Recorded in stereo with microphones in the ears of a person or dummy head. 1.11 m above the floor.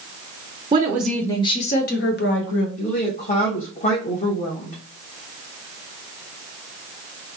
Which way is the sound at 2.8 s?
40° left (ahead or behind).